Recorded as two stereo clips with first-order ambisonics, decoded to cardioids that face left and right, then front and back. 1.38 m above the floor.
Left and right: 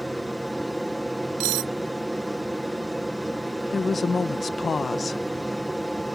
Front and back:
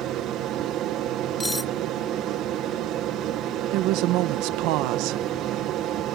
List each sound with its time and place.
0.0 s an aircraft: 175° right
1.4 s cutlery clinking: 85° right
3.7 s a woman speaking: 165° left